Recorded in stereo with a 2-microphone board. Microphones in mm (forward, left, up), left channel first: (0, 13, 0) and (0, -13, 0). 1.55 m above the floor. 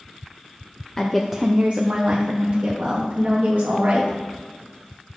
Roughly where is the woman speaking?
Centre.